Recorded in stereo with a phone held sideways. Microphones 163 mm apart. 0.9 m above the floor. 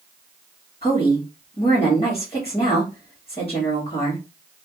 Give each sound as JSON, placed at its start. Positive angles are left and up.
{"t": 0.8, "sound": "a woman speaking", "side_deg": 40, "distance_m": 1.3}